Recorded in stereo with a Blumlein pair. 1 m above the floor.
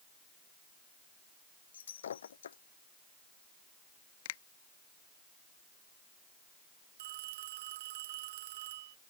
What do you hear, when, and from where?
1.7 s breaking glass: 65° left
4.2 s a finger snap: 55° left
7.0 s a phone ringing: 55° right